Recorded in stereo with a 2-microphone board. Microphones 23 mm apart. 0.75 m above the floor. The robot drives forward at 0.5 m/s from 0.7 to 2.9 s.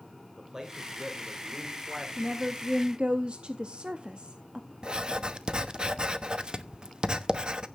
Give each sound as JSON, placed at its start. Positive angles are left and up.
{"t": 0.4, "sound": "a man speaking", "side_deg": -15, "distance_m": 2.5}
{"t": 2.2, "sound": "a woman speaking", "side_deg": -35, "distance_m": 1.0}
{"t": 4.8, "sound": "writing", "side_deg": -40, "distance_m": 0.9}